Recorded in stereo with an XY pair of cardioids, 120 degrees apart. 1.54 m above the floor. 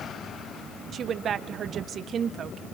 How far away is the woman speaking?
About 1.3 m.